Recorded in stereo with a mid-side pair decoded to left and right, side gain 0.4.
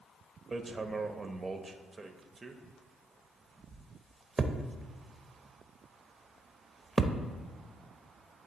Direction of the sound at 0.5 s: 30° right.